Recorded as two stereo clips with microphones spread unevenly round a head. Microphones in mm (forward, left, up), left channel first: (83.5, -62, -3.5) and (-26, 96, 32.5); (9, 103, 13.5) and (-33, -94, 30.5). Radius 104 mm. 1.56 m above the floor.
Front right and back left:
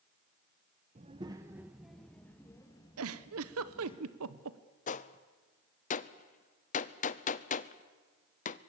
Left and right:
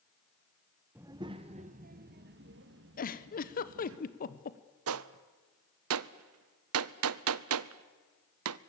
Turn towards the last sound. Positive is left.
turn(degrees=-105)